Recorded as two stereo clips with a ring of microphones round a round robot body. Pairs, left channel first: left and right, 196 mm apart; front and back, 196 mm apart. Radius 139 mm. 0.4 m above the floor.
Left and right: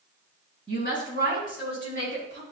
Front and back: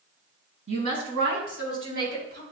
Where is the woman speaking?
150° right, 3 m; by 2.4 s 130° right, 2.5 m.